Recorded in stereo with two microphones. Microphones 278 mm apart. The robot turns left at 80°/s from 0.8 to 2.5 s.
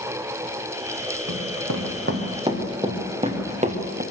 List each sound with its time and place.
1.3 s running footsteps: 80° right, 4 m; by 4.0 s 30° right (ahead or behind), 3.5 m